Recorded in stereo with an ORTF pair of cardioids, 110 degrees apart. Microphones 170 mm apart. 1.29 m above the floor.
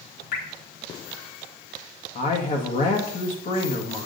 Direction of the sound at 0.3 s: 70° left.